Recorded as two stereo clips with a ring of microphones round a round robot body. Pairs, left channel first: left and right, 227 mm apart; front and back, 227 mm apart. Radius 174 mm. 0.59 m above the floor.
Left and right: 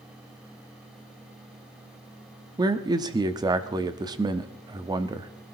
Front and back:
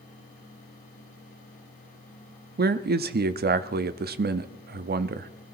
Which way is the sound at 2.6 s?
155° right.